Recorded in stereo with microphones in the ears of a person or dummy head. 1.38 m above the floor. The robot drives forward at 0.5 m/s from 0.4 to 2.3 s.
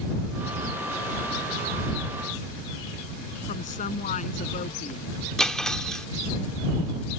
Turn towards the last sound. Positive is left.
turn(degrees=5)  # may be behind; listen again after turning